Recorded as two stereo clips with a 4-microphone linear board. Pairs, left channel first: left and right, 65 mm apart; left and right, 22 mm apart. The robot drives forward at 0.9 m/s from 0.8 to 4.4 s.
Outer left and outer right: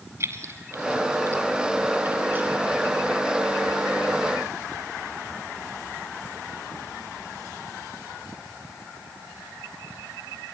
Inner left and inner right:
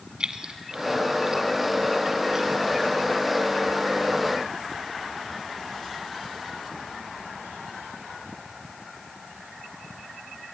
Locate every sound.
0.2 s keys jangling: 45° right (ahead or behind), 1.3 m; by 2.5 s 25° right (ahead or behind), 2.0 m